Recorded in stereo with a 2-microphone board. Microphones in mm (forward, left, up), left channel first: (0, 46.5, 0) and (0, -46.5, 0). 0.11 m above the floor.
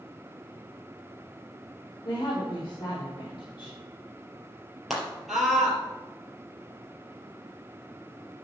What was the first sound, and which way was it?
A woman speaking, 45° left (ahead or behind).